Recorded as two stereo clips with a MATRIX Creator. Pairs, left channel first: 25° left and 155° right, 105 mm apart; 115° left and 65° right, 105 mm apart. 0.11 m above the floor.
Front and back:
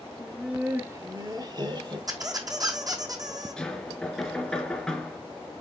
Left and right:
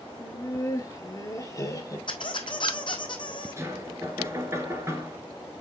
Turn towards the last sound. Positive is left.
turn(degrees=-55)